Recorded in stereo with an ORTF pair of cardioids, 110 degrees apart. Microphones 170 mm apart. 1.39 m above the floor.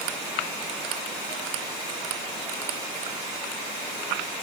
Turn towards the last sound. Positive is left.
No sound to turn to.